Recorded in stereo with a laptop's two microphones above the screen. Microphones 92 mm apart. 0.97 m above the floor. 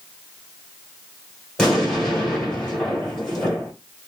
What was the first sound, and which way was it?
An explosion, 5° left (ahead or behind).